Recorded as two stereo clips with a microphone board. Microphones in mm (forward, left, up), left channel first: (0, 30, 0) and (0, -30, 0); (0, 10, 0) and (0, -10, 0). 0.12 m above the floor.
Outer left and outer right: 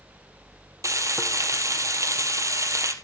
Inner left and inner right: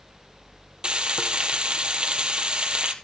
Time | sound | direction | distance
0.8 | frying | 60° right (ahead or behind) | 2 m